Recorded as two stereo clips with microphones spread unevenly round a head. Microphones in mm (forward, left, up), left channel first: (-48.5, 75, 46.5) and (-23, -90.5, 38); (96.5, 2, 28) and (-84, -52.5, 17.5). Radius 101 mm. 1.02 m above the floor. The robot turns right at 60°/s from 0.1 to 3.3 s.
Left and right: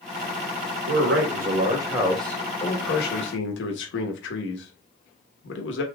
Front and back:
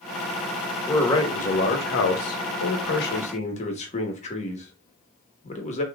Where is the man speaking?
70° right, 1.2 m; by 5.8 s 75° left, 1.2 m.